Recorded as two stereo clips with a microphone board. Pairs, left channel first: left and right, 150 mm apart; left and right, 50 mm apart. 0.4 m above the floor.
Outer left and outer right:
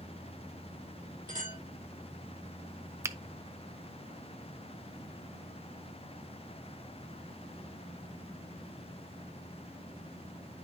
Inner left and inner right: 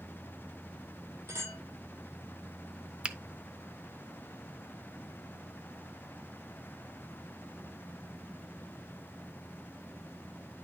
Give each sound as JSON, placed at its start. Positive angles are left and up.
{"t": 1.3, "sound": "a clink", "side_deg": -65, "distance_m": 7.5}
{"t": 3.0, "sound": "a finger snap", "side_deg": -20, "distance_m": 0.5}